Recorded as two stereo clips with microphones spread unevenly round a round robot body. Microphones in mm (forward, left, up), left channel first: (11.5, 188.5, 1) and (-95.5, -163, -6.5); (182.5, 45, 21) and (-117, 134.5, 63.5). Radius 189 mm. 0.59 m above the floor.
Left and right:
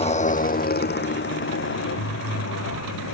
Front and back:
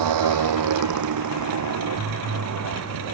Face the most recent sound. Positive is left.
turn(degrees=125)